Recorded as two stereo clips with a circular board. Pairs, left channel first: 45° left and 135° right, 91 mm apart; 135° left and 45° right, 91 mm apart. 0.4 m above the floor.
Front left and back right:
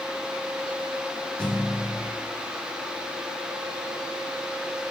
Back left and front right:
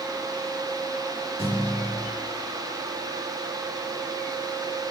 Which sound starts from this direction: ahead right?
A thud, at 1.4 s.